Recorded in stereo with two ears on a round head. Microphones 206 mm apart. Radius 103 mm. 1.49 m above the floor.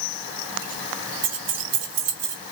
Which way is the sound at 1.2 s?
85° right.